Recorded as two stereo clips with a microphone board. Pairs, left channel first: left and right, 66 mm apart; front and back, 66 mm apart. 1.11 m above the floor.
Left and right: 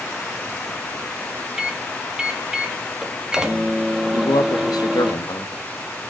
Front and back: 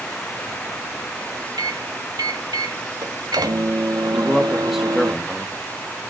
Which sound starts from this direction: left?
A man speaking, at 4.1 s.